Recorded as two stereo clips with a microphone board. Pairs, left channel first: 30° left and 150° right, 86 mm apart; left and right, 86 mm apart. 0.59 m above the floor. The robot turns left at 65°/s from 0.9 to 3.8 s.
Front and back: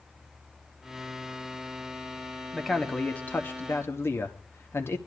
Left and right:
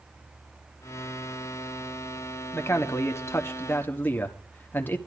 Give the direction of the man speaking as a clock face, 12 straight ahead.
8 o'clock.